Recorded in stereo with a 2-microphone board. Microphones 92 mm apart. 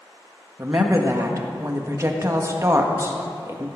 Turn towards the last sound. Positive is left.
turn(degrees=-35)  # may be behind; listen again after turning